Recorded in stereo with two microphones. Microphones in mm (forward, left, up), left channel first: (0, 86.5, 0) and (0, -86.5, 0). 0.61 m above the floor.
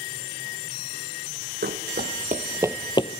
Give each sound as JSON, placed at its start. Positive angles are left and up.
{"t": 1.6, "sound": "running footsteps", "side_deg": -70, "distance_m": 1.7}